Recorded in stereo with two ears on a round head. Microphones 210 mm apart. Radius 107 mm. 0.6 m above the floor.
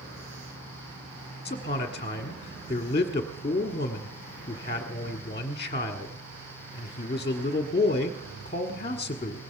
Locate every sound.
1.4 s a man speaking: 25° left (ahead or behind), 1.3 m